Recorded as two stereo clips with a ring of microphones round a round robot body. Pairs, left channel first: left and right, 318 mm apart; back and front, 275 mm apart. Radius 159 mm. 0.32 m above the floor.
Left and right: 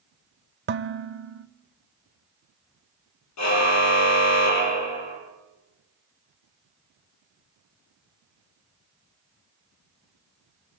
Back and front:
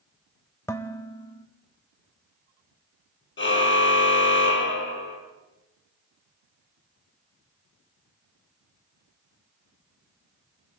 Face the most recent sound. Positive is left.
turn(degrees=130)